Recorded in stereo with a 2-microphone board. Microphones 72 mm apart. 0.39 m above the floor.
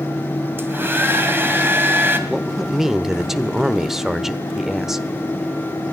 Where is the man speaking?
5° right (ahead or behind), 0.8 m.